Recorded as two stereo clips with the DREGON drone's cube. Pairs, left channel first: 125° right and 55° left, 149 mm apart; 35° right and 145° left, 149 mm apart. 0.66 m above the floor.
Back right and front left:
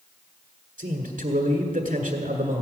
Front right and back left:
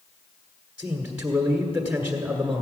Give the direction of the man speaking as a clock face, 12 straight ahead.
9 o'clock.